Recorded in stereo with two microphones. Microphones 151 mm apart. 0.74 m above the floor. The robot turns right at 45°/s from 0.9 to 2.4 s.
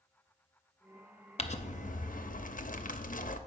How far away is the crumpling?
About 0.6 m.